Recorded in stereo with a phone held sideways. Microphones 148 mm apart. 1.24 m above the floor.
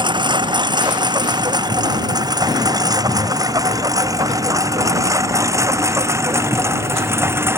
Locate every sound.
0.0 s a lawn mower: 30° right (ahead or behind); by 7.6 s 15° right (ahead or behind)